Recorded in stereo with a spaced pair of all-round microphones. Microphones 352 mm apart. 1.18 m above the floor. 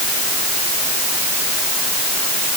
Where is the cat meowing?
I don't hear a cat meowing.